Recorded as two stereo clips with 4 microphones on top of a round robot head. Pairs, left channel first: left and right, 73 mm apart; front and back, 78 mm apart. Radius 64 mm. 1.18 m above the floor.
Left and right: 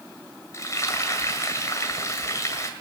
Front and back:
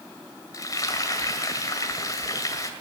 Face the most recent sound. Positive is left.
turn(degrees=45)